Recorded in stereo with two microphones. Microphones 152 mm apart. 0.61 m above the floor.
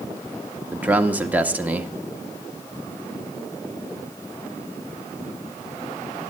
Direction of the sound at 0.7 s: 10° right (ahead or behind).